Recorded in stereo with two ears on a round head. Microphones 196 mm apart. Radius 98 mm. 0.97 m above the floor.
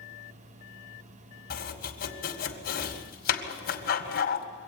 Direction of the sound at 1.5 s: 45° left (ahead or behind).